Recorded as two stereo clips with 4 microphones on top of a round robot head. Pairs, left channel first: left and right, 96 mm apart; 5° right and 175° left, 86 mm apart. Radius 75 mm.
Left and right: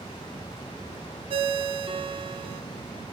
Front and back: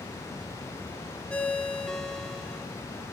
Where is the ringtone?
85° right, 1.1 m.